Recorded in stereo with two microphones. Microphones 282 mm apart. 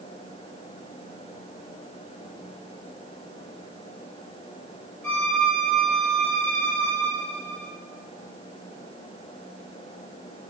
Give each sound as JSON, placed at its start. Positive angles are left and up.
{"t": 5.0, "sound": "a violin", "side_deg": -75, "distance_m": 4.0}